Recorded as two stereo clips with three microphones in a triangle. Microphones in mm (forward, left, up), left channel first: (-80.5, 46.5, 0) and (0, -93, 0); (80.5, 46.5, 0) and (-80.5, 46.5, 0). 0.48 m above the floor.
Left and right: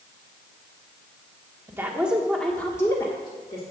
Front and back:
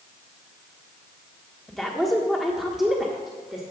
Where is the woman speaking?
85° right, 1.1 m; by 3.6 s 95° left, 1.4 m.